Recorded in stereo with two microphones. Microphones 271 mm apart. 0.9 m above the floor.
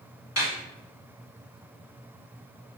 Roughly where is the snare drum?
Left.